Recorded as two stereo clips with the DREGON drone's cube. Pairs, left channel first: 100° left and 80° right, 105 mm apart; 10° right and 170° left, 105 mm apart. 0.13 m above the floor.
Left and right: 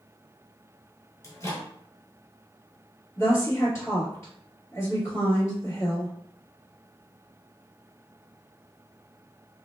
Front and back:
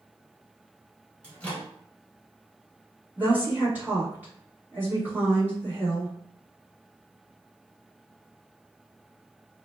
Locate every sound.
1.2 s a microwave: 60° left, 1.2 m
3.2 s a woman speaking: 110° left, 1.9 m